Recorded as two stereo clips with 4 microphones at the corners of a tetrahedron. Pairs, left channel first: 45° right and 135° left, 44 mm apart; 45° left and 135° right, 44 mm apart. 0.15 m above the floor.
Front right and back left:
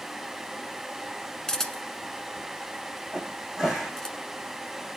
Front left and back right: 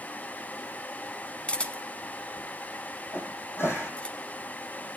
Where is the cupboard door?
55° left, 8.5 m.